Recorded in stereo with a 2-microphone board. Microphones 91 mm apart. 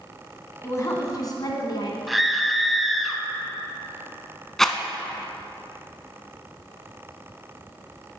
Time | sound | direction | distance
0.6 | a woman speaking | 30° left (ahead or behind) | 1.4 m
2.1 | a scream | centre (ahead or behind) | 1.0 m
4.6 | a rattle | 5° left (ahead or behind) | 0.6 m